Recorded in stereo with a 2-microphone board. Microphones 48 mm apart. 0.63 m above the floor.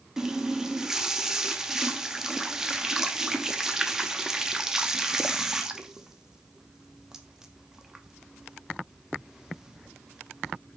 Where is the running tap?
10° right (ahead or behind), 0.5 m.